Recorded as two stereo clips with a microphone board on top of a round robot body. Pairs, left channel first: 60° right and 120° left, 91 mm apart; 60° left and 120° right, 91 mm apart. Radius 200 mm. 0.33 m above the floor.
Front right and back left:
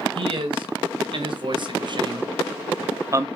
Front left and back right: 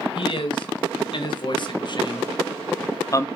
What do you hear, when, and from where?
0.1 s a man speaking: 90° left, 3.5 m